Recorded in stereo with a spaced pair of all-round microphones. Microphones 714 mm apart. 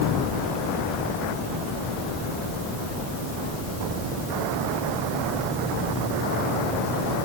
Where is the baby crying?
No baby crying in this recording.